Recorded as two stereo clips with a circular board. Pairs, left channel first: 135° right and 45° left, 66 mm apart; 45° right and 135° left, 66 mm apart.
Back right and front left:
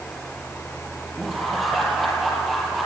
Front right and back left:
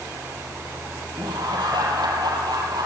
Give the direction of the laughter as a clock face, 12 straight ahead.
8 o'clock.